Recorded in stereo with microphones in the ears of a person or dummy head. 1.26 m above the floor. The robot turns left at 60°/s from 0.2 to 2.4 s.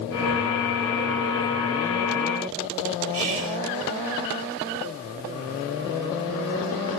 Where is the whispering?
65° right (ahead or behind), 1.2 m.